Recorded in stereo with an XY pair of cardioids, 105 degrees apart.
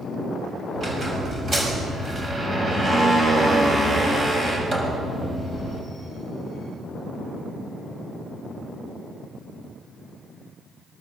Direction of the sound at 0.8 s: 35° right.